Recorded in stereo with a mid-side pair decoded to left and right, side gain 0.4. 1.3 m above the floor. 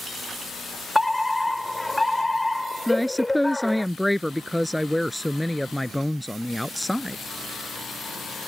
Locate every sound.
0.9 s a fire alarm: 10° left
2.9 s a woman speaking: 5° left